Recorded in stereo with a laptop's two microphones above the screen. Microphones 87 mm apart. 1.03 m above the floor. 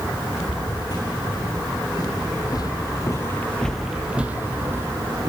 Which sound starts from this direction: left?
Footsteps, at 0.4 s.